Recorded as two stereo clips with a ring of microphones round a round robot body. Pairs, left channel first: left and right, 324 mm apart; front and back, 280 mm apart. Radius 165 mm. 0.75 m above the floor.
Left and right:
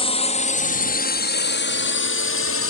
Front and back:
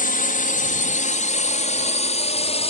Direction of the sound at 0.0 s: 30° left.